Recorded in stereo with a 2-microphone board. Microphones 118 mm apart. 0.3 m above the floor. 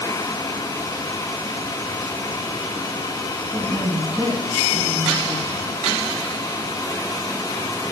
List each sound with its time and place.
3.5 s a woman speaking: 20° right (ahead or behind), 3 m; by 5.7 s 65° right (ahead or behind), 3 m